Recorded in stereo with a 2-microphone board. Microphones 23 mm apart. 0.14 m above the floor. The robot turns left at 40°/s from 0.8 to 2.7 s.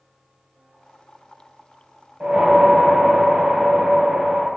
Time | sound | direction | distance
2.2 | a whoosh | 55° right (ahead or behind) | 1.2 m